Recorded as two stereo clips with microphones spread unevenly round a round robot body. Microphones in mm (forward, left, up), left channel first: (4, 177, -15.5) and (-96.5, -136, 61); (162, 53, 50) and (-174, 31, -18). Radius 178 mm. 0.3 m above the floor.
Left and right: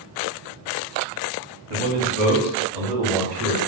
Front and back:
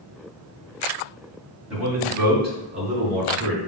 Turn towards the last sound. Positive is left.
turn(degrees=-120)